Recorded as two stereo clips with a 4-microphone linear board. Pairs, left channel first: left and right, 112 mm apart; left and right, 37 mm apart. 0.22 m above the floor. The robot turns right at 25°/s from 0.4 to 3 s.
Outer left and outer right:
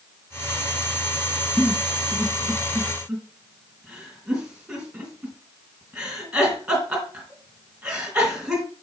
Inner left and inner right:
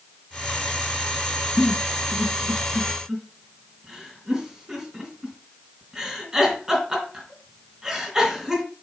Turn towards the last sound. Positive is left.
turn(degrees=-10)  # may be behind; listen again after turning